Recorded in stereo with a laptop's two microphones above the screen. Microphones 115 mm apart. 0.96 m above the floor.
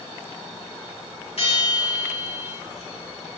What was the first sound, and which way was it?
A bell, 60° left (ahead or behind).